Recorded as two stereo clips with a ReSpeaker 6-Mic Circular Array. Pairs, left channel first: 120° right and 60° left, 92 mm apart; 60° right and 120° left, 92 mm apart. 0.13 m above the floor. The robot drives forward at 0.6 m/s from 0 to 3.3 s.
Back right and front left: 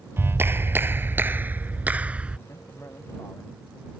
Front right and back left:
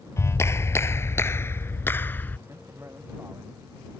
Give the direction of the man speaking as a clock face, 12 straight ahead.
6 o'clock.